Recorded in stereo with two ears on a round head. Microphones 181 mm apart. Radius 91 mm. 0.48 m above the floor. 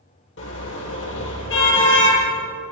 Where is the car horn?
65° left (ahead or behind), 6.5 m.